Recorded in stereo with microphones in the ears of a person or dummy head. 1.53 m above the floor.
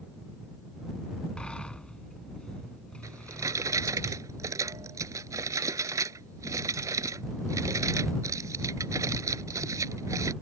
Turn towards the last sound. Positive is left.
turn(degrees=-20)  # may be behind; listen again after turning